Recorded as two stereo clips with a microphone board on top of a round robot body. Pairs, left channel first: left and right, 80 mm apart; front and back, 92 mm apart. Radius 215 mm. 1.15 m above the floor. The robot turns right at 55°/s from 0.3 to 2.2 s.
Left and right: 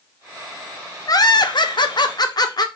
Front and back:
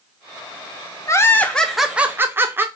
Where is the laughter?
50° left, 0.9 m; by 2.6 s 115° left, 0.9 m.